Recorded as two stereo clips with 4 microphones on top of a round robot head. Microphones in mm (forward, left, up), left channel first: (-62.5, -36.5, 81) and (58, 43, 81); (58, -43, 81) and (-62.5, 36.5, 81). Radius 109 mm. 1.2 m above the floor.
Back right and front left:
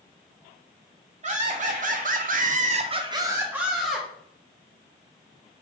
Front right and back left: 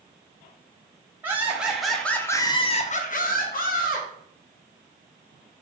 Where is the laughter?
70° left, 1.2 m; by 4.1 s 55° right, 1.1 m.